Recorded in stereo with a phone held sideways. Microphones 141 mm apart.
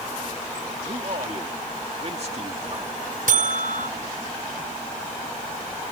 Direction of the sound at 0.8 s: 50° right (ahead or behind).